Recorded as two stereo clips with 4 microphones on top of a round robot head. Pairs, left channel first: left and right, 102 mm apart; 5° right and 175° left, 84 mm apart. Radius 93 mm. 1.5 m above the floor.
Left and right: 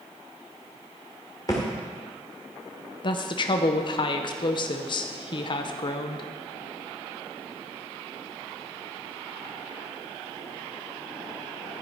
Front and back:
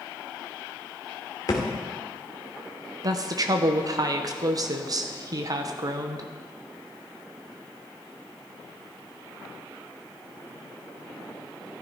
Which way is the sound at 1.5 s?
25° left.